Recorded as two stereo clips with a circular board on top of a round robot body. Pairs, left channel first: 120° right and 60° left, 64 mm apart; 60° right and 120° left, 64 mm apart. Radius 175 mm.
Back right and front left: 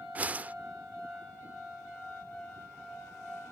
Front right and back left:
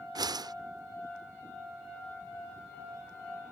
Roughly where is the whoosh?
Behind left.